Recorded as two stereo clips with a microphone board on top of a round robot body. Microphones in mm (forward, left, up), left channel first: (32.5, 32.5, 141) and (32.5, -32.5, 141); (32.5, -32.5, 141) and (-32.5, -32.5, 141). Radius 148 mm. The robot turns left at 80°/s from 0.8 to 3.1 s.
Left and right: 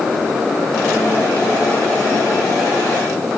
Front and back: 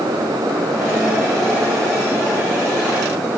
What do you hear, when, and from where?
Only background noise.